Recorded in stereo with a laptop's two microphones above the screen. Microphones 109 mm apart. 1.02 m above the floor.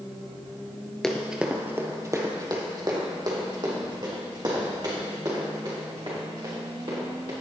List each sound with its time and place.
1.0 s running footsteps: 5° left (ahead or behind), 1.0 m; by 7.3 s 50° right (ahead or behind), 7.5 m